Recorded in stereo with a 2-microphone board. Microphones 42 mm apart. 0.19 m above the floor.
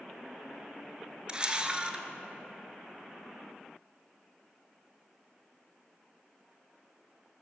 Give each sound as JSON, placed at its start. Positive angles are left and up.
{"t": 1.3, "sound": "a camera shutter", "side_deg": -25, "distance_m": 1.0}